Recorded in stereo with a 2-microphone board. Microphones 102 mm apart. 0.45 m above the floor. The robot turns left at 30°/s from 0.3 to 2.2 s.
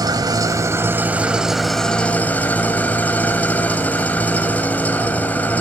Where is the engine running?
140° right, 1.5 m; by 5.6 s 165° left, 1.5 m.